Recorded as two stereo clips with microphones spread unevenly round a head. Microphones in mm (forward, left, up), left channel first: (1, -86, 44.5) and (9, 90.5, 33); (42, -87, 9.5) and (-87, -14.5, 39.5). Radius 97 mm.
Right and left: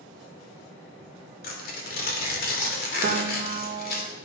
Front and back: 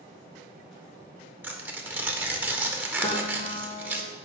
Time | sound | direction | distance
1.4 | tearing paper | 135° right | 2.5 m
3.0 | a piano | 40° left | 1.4 m